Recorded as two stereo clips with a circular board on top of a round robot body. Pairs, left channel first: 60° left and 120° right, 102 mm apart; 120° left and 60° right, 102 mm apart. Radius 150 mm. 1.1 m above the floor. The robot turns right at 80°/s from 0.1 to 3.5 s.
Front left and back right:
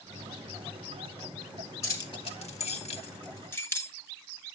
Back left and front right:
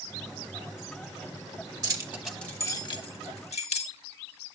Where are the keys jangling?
5° right, 1.4 m; by 3.9 s 130° left, 1.4 m.